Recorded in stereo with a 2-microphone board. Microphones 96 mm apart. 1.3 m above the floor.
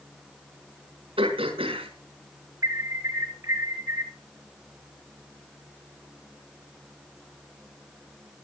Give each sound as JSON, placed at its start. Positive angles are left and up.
{"t": 1.2, "sound": "throat clearing", "side_deg": -75, "distance_m": 5.0}
{"t": 2.6, "sound": "an alarm", "side_deg": -35, "distance_m": 3.5}